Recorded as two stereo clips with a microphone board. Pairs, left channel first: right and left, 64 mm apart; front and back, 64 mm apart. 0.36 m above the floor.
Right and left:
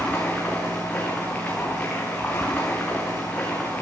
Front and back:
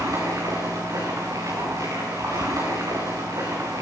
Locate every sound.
0.0 s running water: 160° right, 8 m